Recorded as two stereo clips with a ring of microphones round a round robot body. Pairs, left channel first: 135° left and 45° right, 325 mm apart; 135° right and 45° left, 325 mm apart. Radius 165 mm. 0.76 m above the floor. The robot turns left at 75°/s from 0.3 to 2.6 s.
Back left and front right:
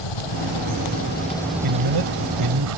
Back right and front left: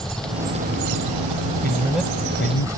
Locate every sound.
0.0 s an engine running: 135° left; by 2.8 s 35° right
1.6 s a man speaking: 20° right; by 2.8 s 90° right